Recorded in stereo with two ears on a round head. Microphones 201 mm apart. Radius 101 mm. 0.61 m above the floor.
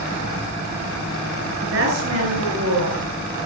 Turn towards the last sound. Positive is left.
turn(degrees=-75)  # may be behind; listen again after turning